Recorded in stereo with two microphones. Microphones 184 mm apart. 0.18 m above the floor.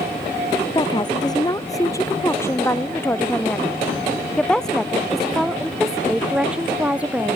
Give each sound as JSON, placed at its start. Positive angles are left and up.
{"t": 0.8, "sound": "a woman speaking", "side_deg": 25}